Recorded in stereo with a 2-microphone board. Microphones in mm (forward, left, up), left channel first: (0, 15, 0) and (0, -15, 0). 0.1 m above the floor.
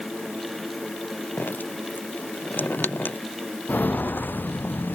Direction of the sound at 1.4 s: 85° left.